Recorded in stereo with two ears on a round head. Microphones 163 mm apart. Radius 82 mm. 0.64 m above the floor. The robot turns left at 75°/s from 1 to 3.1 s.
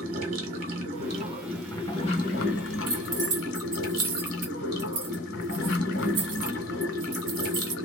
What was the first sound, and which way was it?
Running water, 135° right.